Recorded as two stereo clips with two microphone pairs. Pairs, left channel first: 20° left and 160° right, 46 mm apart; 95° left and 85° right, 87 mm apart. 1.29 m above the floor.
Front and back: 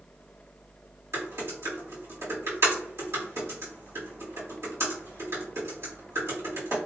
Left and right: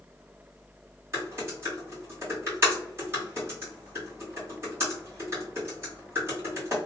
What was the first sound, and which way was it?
Typing on a keyboard, 145° right.